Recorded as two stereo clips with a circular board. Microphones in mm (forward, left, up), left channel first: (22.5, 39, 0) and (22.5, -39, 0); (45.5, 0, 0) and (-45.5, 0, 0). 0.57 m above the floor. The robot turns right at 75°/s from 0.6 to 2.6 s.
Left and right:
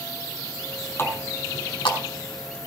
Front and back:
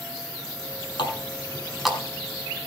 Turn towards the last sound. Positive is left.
turn(degrees=145)